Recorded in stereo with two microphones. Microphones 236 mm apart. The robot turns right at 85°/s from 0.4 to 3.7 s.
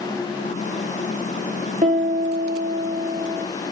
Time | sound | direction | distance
1.8 | a piano | 145° right | 3 m